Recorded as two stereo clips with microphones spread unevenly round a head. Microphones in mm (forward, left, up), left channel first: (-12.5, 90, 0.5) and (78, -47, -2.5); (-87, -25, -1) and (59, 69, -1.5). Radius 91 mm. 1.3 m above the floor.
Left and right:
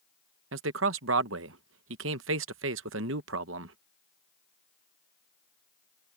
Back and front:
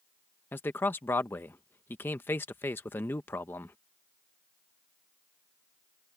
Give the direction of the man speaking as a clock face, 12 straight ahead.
2 o'clock.